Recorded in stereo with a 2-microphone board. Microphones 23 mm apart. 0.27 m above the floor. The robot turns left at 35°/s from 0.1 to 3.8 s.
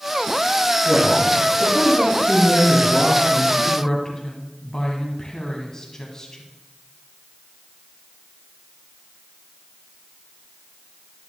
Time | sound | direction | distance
0.8 | a man speaking | 5° right | 5.5 m
3.6 | a woman speaking | 20° left (ahead or behind) | 1.7 m